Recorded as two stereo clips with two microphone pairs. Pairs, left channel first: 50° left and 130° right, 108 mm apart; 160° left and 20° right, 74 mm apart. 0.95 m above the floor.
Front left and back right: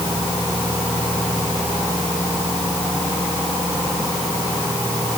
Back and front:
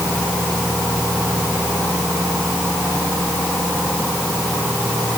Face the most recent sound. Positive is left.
No sound to turn to.